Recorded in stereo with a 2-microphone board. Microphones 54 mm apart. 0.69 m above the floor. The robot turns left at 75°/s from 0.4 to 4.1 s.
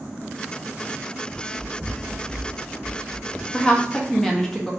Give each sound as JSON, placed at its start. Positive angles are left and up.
{"t": 1.3, "sound": "running footsteps", "side_deg": 10, "distance_m": 0.9}
{"t": 3.5, "sound": "a woman speaking", "side_deg": 20, "distance_m": 0.7}